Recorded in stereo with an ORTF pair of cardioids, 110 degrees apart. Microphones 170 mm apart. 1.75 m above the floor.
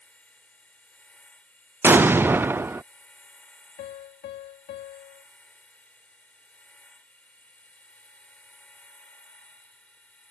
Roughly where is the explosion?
Ahead.